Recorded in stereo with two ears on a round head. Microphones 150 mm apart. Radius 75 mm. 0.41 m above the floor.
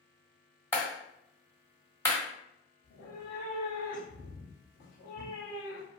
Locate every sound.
0.7 s a clap: 15° left (ahead or behind), 1.3 m
2.8 s a cat meowing: 65° left (ahead or behind), 1.7 m